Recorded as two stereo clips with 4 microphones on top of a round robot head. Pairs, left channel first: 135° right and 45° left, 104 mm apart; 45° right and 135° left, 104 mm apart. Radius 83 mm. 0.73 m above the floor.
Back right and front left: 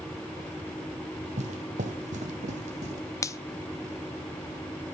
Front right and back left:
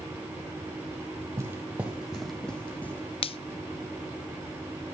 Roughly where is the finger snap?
Right.